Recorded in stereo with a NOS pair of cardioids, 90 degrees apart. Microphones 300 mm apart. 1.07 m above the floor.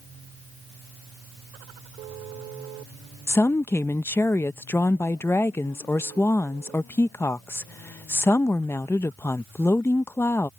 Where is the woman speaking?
10° left.